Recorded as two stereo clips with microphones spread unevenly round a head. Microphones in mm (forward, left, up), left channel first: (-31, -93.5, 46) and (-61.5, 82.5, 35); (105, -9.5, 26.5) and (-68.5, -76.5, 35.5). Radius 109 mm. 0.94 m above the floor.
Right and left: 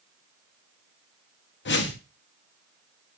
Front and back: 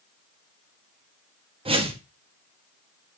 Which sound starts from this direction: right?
A whoosh, at 1.6 s.